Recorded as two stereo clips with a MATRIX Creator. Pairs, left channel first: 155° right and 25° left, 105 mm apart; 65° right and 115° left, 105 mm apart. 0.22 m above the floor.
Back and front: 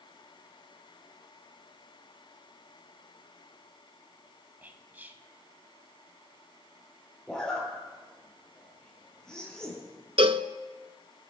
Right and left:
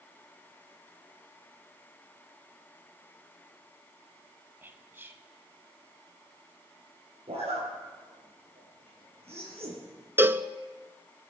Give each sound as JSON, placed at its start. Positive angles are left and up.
{"t": 4.6, "sound": "whispering", "azimuth_deg": 75, "distance_m": 1.2}
{"t": 7.3, "sound": "a zipper", "azimuth_deg": 120, "distance_m": 5.0}
{"t": 10.2, "sound": "a cowbell", "azimuth_deg": 45, "distance_m": 0.6}